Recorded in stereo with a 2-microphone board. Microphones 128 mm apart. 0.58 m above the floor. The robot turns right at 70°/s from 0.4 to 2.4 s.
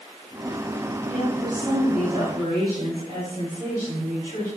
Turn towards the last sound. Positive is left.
turn(degrees=-35)